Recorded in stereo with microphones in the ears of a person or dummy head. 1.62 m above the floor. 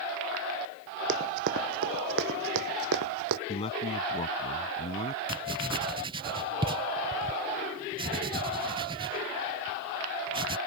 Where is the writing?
25° right (ahead or behind).